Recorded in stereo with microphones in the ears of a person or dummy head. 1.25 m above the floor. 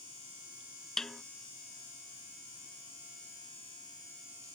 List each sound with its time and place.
1.0 s a snare drum: 5° left (ahead or behind)